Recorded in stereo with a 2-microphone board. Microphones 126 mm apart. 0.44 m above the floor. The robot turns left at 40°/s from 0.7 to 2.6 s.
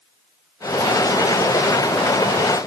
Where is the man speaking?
No man speaking in this recording.